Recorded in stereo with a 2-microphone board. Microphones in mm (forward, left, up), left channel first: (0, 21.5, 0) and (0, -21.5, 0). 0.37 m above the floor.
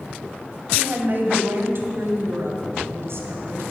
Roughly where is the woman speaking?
Right.